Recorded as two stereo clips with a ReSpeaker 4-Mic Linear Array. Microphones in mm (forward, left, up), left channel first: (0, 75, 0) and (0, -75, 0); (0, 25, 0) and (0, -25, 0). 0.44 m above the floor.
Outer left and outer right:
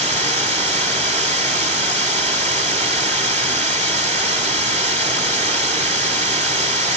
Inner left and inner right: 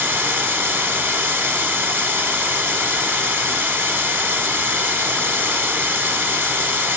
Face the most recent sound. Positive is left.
turn(degrees=-50)  # may be behind; listen again after turning